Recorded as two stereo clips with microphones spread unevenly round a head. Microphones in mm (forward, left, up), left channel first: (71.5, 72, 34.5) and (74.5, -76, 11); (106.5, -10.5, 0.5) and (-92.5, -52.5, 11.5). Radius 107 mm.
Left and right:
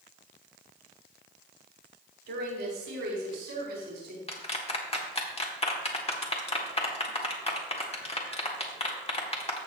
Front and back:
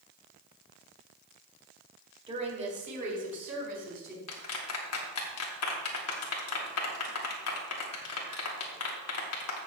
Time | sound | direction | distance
2.3 | a woman speaking | 105° right | 3.5 m
4.3 | a clap | 40° left | 1.8 m